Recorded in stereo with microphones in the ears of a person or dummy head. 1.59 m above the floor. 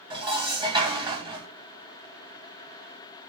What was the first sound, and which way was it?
Dishes clattering, 20° right (ahead or behind).